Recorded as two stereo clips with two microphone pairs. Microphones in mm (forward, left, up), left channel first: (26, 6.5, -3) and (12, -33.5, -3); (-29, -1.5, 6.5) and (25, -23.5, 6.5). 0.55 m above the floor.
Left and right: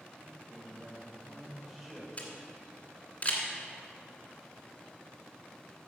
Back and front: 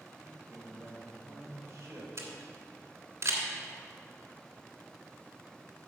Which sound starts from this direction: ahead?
A camera shutter, at 2.2 s.